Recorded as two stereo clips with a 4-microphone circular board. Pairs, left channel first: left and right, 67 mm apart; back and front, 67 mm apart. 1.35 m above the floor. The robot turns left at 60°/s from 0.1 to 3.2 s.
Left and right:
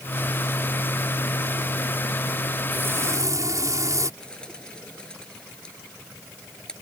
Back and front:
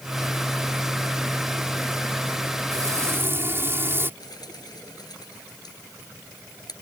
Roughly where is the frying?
Ahead right.